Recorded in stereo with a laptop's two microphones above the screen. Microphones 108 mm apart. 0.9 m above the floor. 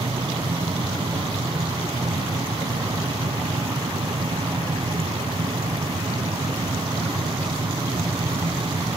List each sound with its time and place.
0.0 s a machine running: 60° right (ahead or behind), 1.9 m